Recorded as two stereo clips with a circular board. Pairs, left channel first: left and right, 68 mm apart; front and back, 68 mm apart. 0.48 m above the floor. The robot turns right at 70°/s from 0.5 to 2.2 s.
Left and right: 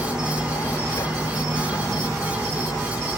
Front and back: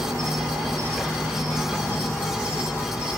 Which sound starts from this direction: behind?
An insect, at 0.0 s.